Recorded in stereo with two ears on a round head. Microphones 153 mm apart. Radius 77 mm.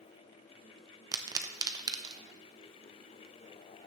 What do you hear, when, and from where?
1.1 s a pop: 20° right (ahead or behind), 0.7 m